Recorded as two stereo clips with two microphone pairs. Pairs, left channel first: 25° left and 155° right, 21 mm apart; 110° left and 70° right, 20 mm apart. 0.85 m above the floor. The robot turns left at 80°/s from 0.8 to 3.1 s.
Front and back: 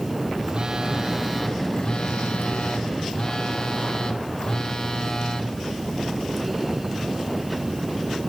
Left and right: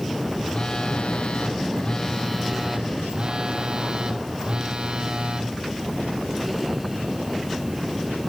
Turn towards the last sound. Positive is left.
turn(degrees=-30)